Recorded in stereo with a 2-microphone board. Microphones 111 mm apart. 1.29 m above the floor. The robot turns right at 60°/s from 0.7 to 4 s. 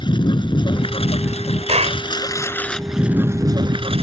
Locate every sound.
0.0 s a lawn mower: 50° left; by 4.0 s 115° right
1.7 s a clap: 80° right; by 2.0 s 60° right (ahead or behind)